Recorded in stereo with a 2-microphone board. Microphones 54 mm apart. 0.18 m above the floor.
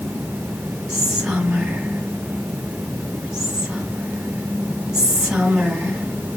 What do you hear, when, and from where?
0.9 s whispering: 10° right (ahead or behind), 1.7 m